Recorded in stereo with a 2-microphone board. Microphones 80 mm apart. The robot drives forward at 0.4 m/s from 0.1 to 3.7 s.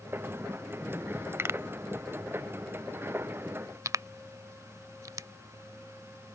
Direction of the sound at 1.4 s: 35° right (ahead or behind).